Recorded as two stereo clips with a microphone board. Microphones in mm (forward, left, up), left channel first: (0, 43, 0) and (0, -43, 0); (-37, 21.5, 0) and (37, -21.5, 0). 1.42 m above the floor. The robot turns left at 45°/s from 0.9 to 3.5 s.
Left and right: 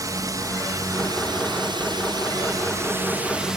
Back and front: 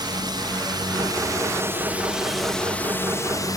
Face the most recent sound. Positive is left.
turn(degrees=-170)